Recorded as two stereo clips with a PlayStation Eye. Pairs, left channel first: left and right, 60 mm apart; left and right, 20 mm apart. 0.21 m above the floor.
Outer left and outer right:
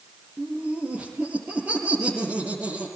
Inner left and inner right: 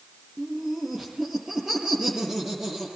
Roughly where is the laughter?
Right.